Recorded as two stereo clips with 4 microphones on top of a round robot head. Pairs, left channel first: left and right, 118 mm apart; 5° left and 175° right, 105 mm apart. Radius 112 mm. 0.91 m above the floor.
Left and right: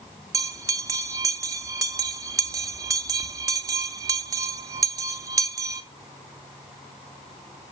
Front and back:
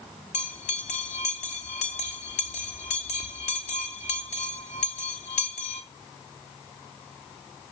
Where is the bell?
30° right, 0.6 m.